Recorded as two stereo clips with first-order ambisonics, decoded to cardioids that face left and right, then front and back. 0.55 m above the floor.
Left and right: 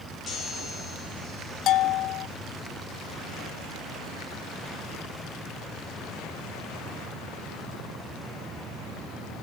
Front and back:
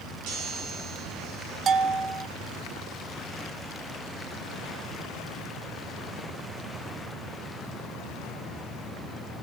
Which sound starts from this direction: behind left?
A bell, at 1.7 s.